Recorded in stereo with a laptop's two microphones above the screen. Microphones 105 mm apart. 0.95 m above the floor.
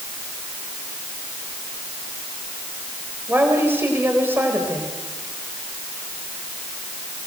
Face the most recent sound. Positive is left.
turn(degrees=-20)  # may be behind; listen again after turning